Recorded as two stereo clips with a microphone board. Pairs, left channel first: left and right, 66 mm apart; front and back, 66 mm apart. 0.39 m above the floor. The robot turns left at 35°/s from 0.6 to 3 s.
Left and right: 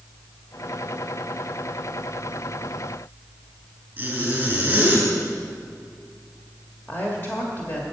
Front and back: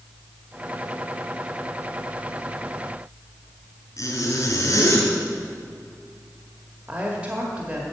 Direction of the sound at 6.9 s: 125° left.